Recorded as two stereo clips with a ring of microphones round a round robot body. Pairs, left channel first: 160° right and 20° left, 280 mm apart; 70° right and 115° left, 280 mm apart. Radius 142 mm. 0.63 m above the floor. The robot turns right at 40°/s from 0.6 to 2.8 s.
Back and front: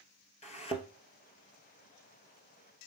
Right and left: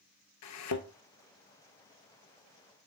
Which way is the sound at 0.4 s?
95° right.